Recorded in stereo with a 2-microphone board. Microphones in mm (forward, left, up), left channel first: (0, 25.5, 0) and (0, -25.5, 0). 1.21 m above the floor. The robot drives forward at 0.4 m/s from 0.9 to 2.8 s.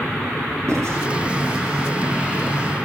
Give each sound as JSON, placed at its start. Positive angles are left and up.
{"t": 0.7, "sound": "writing", "side_deg": -70, "distance_m": 9.0}